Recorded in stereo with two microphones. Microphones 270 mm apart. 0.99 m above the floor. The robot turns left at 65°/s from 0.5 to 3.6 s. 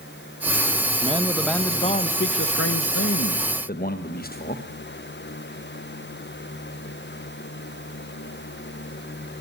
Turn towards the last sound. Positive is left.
turn(degrees=40)